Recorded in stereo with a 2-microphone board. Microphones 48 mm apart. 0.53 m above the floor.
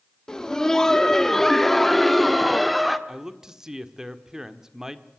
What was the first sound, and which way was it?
Laughter, 15° left (ahead or behind).